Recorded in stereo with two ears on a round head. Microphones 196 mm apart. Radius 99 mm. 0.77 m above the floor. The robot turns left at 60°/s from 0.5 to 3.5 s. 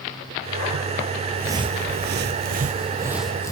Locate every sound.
1.4 s footsteps: 5° right (ahead or behind), 1.0 m; by 3.5 s 15° left (ahead or behind), 1.6 m